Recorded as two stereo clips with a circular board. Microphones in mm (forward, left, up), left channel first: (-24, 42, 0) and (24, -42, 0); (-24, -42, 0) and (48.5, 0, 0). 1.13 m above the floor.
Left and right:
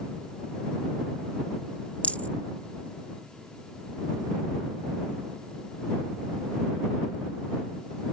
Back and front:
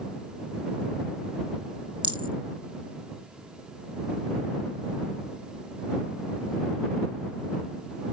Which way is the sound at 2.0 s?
45° left.